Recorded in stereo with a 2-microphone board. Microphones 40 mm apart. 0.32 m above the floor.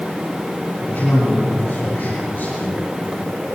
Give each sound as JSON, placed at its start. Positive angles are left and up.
{"t": 0.8, "sound": "a man speaking", "side_deg": 50, "distance_m": 6.5}